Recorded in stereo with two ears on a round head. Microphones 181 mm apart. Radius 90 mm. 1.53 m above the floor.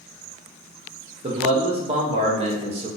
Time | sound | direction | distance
1.2 | a man speaking | 30° right (ahead or behind) | 0.8 m